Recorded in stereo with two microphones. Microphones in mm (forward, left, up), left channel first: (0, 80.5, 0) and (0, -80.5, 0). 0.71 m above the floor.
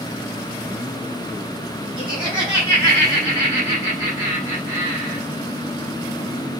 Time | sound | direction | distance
2.0 | laughter | 10° right (ahead or behind) | 4 m